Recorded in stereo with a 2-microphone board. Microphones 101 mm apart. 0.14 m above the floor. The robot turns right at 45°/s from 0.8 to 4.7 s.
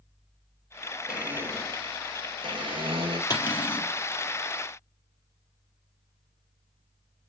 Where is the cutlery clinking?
45° left (ahead or behind), 2.5 m; by 3.9 s 65° left (ahead or behind), 2.5 m.